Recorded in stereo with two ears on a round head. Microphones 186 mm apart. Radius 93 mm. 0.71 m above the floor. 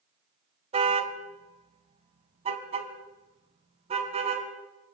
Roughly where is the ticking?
I don't hear ticking.